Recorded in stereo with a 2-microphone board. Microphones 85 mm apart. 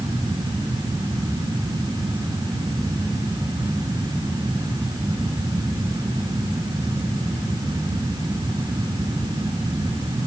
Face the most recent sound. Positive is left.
No sound to turn to.